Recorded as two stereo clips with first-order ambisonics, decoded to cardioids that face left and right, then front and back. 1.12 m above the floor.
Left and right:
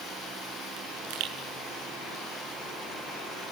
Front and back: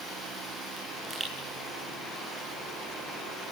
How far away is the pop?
About 8.5 m.